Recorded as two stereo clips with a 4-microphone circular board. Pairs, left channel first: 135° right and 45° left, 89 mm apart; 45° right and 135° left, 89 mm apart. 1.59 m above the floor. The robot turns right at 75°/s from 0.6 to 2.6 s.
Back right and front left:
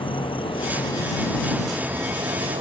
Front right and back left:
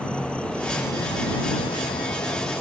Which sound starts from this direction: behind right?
An insect, at 0.0 s.